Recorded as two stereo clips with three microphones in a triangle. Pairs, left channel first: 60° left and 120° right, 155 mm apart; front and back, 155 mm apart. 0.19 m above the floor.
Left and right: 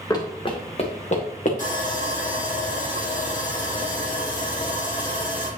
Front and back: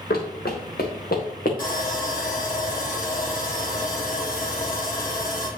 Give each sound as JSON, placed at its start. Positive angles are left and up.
{"t": 0.1, "sound": "running footsteps", "azimuth_deg": -5, "distance_m": 2.0}
{"t": 1.6, "sound": "sawing", "azimuth_deg": 25, "distance_m": 3.5}